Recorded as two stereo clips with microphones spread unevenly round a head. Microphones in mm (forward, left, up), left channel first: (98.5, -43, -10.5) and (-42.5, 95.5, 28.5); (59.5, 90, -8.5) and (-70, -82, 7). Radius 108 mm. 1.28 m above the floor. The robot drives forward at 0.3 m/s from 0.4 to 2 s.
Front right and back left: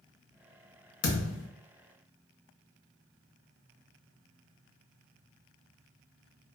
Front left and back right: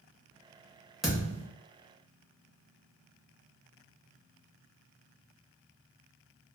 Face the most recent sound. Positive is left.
turn(degrees=-65)